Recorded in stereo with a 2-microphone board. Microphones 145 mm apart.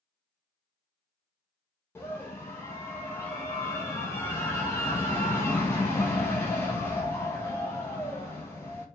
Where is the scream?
15° left (ahead or behind), 1.1 m.